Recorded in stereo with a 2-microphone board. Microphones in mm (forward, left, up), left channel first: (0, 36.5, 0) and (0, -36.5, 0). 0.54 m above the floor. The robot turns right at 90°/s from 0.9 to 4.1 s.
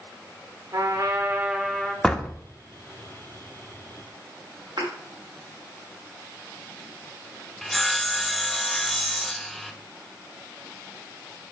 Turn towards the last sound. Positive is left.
turn(degrees=0)  # may be behind; listen again after turning